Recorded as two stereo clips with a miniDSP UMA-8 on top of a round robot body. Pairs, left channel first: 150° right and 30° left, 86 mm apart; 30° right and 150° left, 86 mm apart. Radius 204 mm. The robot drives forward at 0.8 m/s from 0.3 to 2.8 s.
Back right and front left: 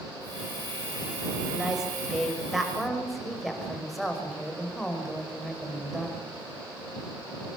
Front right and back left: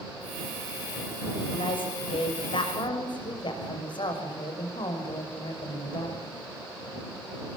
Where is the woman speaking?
50° right, 6.5 m; by 6.2 s 60° right, 6 m.